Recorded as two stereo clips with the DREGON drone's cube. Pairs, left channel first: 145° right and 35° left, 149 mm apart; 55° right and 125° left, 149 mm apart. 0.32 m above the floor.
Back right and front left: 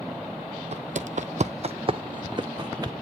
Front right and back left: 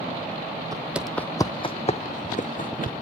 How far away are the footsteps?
About 0.5 m.